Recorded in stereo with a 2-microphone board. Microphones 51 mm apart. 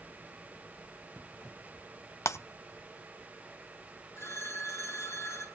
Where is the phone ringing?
70° left (ahead or behind), 8.5 m.